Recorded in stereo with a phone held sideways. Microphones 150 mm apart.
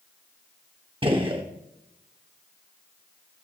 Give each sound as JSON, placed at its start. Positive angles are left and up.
{"t": 1.0, "sound": "a gunshot", "side_deg": -35, "distance_m": 1.1}